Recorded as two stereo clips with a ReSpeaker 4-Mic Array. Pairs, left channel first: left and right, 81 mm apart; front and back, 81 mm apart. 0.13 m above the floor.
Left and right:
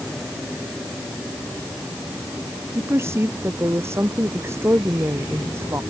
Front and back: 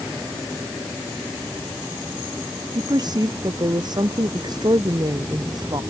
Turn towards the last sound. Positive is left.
turn(degrees=-150)